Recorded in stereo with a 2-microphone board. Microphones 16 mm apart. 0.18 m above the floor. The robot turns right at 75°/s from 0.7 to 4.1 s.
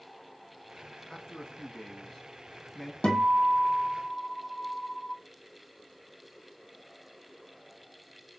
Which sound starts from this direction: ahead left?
A man speaking, at 1.1 s.